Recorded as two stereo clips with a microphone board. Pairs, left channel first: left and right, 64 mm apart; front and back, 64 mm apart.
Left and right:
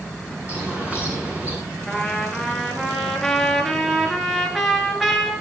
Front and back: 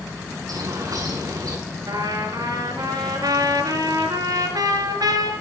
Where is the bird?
155° right, 7 m.